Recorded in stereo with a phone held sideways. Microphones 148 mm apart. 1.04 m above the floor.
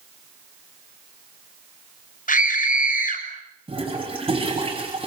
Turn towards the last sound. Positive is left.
turn(degrees=-35)  # may be behind; listen again after turning